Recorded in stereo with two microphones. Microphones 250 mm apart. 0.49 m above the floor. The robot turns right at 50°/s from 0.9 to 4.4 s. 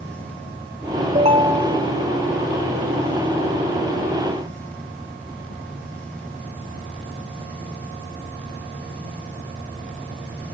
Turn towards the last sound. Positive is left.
turn(degrees=130)